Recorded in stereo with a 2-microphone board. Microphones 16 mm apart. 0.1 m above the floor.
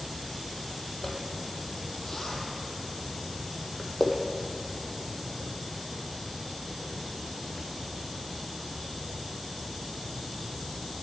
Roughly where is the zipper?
Centre.